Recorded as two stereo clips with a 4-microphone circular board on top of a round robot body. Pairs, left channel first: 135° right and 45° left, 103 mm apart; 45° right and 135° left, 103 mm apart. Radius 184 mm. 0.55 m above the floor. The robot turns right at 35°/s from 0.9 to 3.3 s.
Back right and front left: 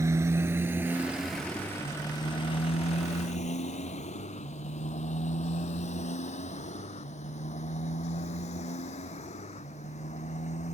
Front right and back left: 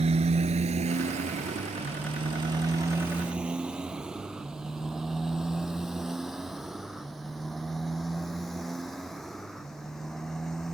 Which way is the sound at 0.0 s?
110° left.